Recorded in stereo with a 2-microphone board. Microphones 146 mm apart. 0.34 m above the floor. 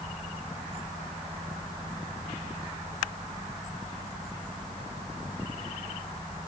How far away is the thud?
No thud in this recording.